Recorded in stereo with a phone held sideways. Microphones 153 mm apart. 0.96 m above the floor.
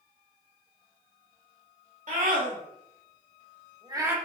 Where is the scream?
60° right (ahead or behind), 1.8 m; by 4.2 s 10° right (ahead or behind), 0.8 m.